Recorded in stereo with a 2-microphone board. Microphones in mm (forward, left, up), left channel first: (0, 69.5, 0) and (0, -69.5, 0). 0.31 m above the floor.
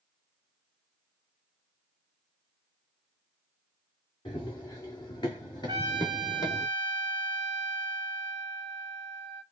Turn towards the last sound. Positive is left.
turn(degrees=-30)  # may be behind; listen again after turning